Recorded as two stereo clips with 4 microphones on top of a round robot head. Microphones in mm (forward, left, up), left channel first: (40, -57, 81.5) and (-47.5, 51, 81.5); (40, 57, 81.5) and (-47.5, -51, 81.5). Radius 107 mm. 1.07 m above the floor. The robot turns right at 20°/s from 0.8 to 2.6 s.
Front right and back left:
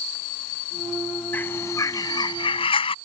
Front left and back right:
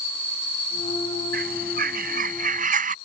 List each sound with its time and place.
1.3 s a bird: 125° right; by 3.0 s 100° right